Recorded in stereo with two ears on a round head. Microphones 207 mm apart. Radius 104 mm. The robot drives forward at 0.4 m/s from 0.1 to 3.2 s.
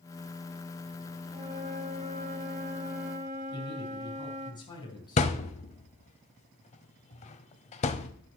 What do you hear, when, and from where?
1.3 s a flute: 25° right (ahead or behind), 1.1 m; by 4.5 s 30° right (ahead or behind), 1.0 m
3.5 s a man speaking: 20° left (ahead or behind), 3.5 m
5.2 s a thud: 30° left (ahead or behind), 0.7 m